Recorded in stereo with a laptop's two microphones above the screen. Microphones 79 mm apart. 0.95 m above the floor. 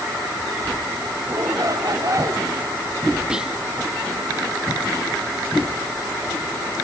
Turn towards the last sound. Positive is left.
turn(degrees=-10)  # may be behind; listen again after turning